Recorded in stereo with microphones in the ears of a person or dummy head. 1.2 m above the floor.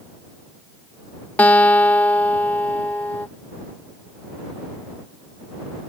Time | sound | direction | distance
1.4 | a guitar | 10° left (ahead or behind) | ?